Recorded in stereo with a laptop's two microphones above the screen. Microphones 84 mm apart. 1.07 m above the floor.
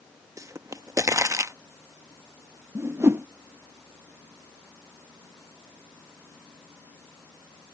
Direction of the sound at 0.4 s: 40° right (ahead or behind).